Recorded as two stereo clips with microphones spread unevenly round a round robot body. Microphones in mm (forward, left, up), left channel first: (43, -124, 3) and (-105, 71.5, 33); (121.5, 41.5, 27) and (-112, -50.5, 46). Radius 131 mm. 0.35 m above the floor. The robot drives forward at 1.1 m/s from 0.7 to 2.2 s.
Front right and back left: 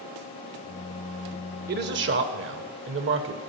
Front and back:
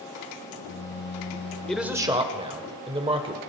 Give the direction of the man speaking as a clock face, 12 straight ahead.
9 o'clock.